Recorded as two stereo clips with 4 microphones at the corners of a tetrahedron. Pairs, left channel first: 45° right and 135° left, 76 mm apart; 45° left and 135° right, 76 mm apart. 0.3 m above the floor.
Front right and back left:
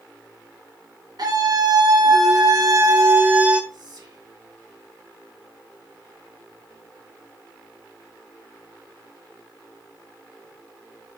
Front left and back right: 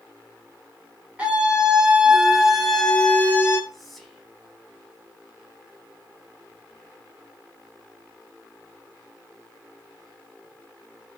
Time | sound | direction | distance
1.2 | a scream | 150° left | 3.5 m
3.7 | whispering | 135° left | 3 m